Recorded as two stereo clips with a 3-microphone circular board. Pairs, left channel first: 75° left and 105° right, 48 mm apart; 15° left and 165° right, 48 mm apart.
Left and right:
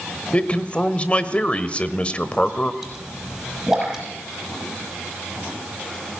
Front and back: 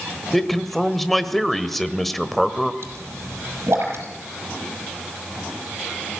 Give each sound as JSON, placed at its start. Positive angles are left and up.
{"t": 0.3, "sound": "a man speaking", "azimuth_deg": 95, "distance_m": 1.1}
{"t": 2.8, "sound": "a pop", "azimuth_deg": 175, "distance_m": 5.5}